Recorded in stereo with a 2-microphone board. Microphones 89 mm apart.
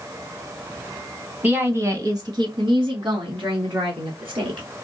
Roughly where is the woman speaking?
Centre.